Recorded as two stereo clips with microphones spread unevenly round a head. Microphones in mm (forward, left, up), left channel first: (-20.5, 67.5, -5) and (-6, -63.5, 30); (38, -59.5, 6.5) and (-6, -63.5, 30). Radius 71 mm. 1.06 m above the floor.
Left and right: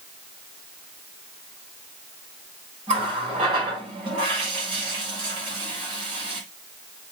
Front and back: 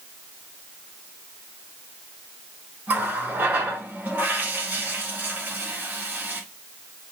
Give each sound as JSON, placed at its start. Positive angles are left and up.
{"t": 2.9, "sound": "a running tap", "azimuth_deg": -135, "distance_m": 5.0}